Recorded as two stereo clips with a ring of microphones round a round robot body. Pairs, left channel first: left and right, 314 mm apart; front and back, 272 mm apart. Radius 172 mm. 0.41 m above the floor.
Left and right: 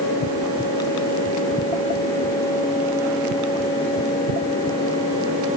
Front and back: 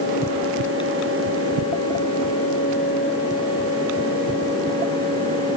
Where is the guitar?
I don't hear a guitar.